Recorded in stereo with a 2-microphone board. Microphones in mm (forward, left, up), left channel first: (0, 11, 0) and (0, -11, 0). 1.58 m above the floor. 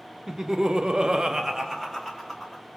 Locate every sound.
0.3 s laughter: 25° right (ahead or behind), 0.8 m; by 2.6 s centre (ahead or behind), 1.5 m